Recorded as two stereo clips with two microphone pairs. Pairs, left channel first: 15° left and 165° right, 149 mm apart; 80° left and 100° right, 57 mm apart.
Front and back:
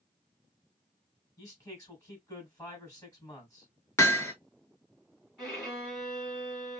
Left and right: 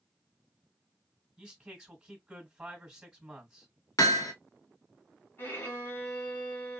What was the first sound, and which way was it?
A man speaking, 35° right.